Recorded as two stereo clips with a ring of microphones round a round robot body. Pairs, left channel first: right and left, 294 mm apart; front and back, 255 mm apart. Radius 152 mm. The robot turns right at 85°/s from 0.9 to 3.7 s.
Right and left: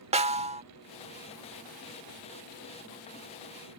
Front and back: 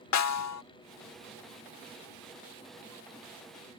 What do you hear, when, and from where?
0.1 s a snare drum: 20° left